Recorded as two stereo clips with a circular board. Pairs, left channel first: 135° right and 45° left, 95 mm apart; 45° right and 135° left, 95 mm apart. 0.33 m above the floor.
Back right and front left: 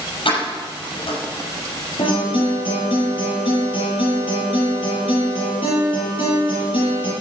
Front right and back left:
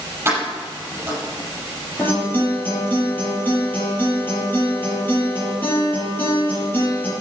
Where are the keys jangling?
160° right, 5.5 m.